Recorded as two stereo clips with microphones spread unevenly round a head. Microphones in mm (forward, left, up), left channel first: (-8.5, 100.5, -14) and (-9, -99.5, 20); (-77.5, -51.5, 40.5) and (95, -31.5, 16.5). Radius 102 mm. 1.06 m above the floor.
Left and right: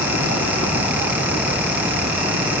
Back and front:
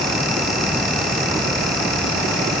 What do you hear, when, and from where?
Only background noise.